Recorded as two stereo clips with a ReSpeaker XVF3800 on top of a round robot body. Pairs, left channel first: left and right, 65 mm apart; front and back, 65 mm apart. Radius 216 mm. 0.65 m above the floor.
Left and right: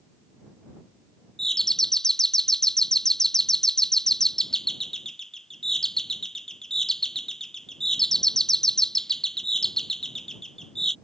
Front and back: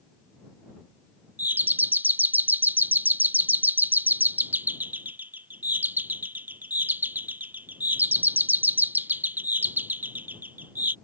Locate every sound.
1.4 s a doorbell: 165° left